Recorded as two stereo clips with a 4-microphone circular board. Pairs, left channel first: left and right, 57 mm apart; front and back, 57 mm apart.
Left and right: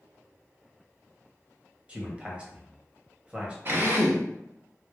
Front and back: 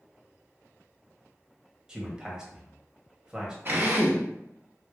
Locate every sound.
1.9 s a man speaking: 125° right, 1.0 m
3.6 s a drill: 135° right, 1.0 m